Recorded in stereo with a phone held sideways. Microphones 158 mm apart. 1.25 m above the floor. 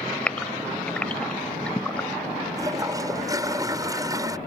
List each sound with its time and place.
0.3 s a gasp: 5° left (ahead or behind)
2.6 s a toilet flushing: 20° right (ahead or behind)